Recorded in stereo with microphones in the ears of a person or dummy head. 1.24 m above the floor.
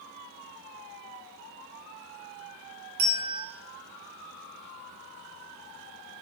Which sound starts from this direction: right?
A bell, at 3.0 s.